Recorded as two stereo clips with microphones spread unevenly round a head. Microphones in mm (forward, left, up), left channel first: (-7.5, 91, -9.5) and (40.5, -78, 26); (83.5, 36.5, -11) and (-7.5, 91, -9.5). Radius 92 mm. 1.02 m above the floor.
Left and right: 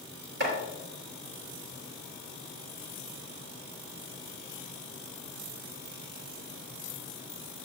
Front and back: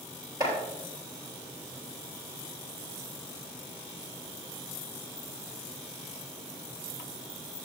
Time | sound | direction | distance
0.4 | chopping | 100° right | 5.5 m